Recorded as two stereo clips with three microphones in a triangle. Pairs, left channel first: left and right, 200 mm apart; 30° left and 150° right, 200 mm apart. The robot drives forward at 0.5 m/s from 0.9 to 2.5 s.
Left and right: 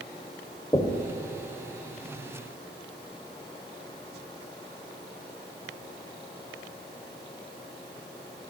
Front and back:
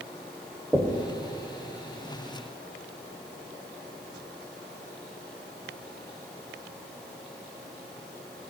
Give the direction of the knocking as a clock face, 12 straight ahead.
8 o'clock.